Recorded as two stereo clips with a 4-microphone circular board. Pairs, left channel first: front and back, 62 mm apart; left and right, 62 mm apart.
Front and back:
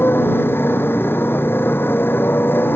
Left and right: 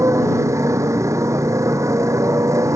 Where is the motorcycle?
55° right.